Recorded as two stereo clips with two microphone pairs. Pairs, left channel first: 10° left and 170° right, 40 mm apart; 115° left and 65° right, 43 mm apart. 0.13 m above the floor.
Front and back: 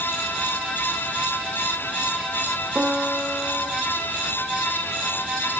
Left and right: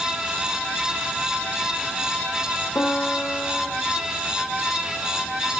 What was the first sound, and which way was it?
A piano, 135° left.